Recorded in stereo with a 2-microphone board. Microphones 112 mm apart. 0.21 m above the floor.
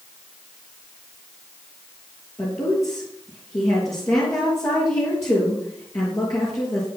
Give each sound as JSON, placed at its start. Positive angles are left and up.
{"t": 2.4, "sound": "a woman speaking", "side_deg": 30, "distance_m": 4.0}